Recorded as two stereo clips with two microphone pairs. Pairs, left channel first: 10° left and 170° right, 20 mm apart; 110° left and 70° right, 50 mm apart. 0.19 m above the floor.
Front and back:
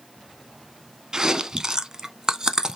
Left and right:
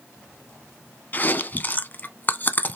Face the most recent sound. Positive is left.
turn(degrees=150)